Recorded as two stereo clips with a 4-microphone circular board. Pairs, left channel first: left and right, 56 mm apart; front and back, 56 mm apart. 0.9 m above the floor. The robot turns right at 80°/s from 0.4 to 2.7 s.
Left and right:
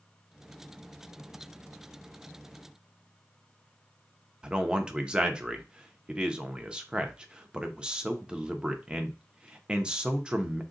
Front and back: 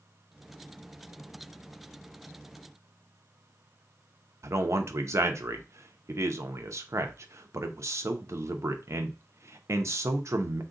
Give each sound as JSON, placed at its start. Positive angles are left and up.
{"t": 4.4, "sound": "a man speaking", "azimuth_deg": -160, "distance_m": 0.6}